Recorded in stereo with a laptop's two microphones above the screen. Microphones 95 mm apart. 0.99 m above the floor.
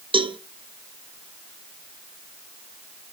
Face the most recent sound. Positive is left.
turn(degrees=-65)  # may be behind; listen again after turning